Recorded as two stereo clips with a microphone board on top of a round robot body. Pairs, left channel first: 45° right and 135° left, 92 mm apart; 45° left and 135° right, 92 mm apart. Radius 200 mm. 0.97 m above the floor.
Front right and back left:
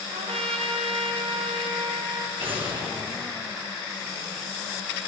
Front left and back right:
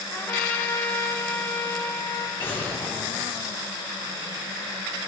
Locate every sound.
0.1 s a trumpet: 115° left, 1.0 m
2.4 s an explosion: 115° left, 3.5 m